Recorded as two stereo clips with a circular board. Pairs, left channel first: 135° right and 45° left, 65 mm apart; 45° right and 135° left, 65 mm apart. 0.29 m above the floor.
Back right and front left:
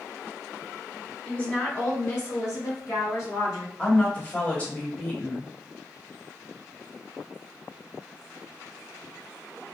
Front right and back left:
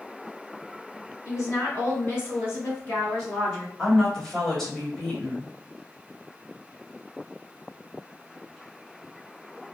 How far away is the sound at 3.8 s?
About 1.1 m.